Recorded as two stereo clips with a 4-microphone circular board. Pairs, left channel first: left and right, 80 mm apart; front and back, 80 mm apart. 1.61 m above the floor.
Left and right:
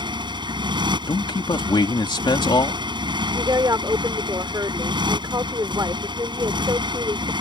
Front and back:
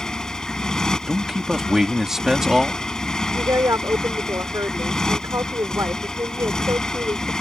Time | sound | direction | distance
0.0 | a motorcycle | 80° right | ?
1.1 | a man speaking | 95° left | ?
3.3 | a woman speaking | 130° right | ?